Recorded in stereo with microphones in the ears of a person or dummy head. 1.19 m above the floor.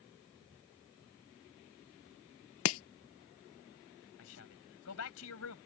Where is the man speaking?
85° left.